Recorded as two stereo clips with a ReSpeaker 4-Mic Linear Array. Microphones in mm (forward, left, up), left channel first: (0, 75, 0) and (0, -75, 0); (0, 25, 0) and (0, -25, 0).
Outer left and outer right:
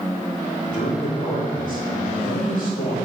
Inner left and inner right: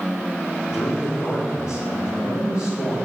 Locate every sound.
0.7 s a man speaking: 85° left, 4.5 m